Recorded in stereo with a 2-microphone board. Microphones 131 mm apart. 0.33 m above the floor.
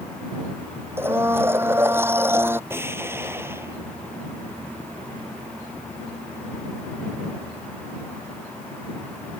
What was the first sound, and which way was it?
A blender, 15° right (ahead or behind).